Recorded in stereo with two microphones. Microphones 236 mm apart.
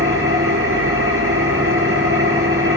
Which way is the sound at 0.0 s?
65° right (ahead or behind).